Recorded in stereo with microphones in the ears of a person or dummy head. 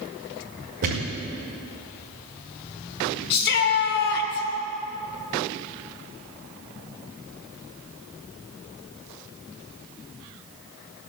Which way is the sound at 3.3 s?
55° left (ahead or behind).